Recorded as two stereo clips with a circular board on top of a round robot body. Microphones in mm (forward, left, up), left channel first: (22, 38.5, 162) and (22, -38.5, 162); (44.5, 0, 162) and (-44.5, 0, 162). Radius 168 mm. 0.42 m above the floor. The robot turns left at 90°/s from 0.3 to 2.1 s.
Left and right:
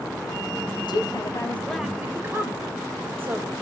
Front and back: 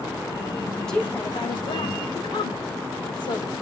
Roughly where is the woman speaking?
Left.